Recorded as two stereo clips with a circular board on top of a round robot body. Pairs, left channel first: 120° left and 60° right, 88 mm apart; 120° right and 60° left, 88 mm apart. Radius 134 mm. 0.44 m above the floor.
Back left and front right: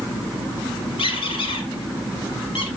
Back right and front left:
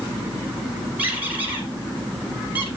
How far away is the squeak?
About 3.5 m.